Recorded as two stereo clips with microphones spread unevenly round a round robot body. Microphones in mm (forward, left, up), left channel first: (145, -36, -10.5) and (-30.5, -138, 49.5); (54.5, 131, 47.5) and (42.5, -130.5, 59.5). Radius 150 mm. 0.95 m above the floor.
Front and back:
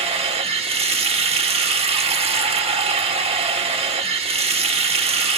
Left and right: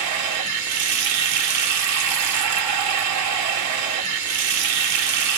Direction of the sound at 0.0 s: 85° right.